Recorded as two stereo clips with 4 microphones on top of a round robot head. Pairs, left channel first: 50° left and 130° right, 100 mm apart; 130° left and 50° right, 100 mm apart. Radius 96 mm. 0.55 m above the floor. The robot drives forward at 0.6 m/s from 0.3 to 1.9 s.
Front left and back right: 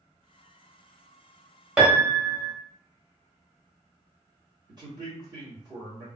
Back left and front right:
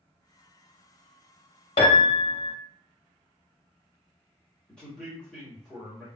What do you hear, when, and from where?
1.8 s a piano: 155° left, 0.8 m
4.7 s a man speaking: 150° right, 1.7 m